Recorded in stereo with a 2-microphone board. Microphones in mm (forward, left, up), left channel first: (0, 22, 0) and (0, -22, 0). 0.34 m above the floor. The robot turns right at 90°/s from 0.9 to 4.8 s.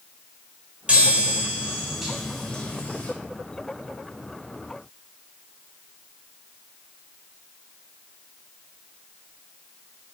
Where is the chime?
115° right, 0.8 m; by 3.1 s 80° left, 0.8 m.